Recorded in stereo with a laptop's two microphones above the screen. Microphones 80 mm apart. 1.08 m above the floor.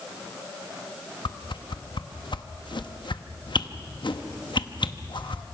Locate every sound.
1.2 s a whoosh: 75° left (ahead or behind), 1.0 m